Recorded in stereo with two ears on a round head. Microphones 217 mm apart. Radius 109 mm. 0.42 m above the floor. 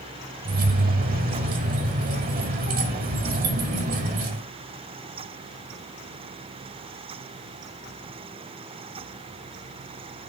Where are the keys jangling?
35° right (ahead or behind), 1.6 m.